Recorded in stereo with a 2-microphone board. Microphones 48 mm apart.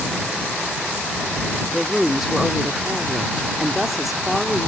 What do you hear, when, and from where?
1.7 s a woman speaking: 5° right (ahead or behind)